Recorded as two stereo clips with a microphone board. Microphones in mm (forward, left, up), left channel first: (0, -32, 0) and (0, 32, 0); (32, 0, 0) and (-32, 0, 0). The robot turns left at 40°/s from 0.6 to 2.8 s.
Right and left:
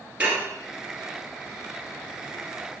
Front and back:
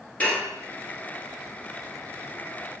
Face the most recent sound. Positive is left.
turn(degrees=-50)